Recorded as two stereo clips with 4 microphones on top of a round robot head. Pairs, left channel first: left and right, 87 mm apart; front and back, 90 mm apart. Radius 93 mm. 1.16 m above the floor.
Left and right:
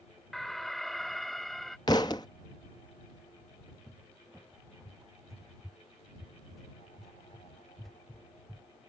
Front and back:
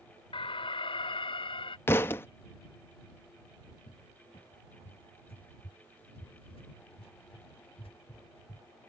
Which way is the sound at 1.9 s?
45° left.